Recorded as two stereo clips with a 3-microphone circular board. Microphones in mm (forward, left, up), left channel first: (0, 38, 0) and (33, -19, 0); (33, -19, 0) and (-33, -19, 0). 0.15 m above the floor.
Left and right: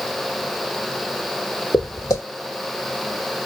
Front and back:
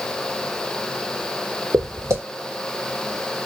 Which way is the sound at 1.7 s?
140° left.